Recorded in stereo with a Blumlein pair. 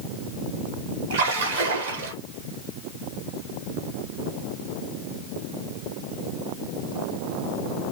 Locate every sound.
1.1 s a splash: 60° right, 1.1 m